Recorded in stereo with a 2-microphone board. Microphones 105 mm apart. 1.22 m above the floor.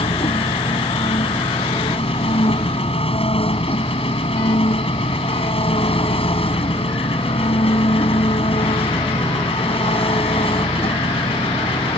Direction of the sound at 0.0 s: 65° left (ahead or behind).